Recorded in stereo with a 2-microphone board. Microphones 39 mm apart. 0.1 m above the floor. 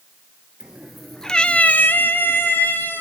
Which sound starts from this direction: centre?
A cat meowing, at 0.6 s.